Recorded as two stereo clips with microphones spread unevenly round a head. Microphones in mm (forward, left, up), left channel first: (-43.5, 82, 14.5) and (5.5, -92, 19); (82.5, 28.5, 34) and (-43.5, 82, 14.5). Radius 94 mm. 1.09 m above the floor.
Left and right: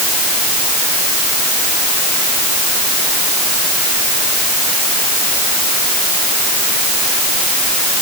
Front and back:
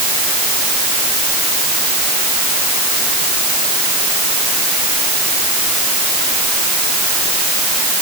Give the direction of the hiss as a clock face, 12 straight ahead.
I don't hear a hiss.